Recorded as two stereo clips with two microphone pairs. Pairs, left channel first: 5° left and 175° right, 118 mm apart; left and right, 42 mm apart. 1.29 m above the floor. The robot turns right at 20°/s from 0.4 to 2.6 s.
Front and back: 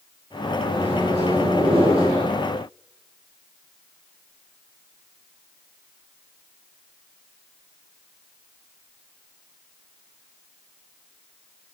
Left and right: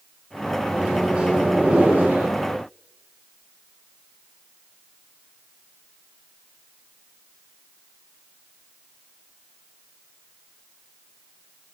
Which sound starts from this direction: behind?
A microwave, at 0.7 s.